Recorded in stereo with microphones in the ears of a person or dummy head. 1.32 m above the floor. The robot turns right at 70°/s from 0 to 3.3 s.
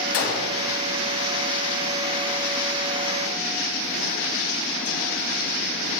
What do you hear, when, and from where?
0.1 s a gunshot: 100° left, 1.2 m; by 0.6 s 135° left, 1.2 m